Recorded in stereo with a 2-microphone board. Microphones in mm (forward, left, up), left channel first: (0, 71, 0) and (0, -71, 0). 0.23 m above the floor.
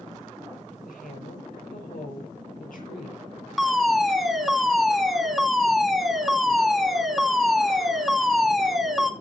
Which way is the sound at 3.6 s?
Centre (ahead or behind).